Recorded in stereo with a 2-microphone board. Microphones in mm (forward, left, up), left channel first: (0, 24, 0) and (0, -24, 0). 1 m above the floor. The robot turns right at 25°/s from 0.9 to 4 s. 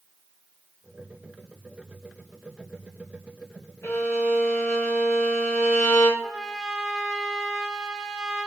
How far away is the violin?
About 1.1 m.